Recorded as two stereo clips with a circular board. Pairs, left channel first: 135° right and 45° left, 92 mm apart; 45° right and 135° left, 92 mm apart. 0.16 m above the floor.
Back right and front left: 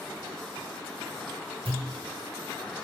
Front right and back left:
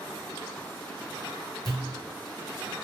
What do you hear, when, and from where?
1.6 s a pop: 45° left, 1.3 m